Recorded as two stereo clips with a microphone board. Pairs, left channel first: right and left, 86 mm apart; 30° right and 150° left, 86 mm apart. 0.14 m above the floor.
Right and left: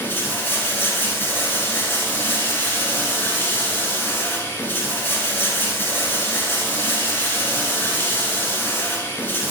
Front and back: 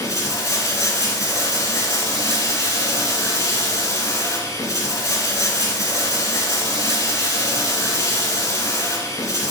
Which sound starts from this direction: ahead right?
Running water, at 0.0 s.